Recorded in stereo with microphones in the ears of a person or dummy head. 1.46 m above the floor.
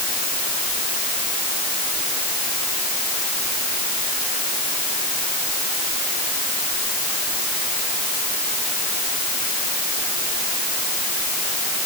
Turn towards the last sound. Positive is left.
No sound to turn to.